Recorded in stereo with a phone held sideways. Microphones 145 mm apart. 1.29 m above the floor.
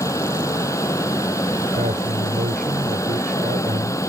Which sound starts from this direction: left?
A fan, at 0.0 s.